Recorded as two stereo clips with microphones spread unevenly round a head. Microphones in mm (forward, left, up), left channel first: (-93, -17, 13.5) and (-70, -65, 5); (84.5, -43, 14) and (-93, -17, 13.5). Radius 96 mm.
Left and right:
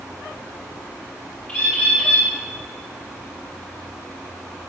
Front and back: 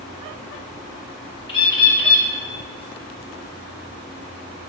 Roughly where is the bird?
Ahead left.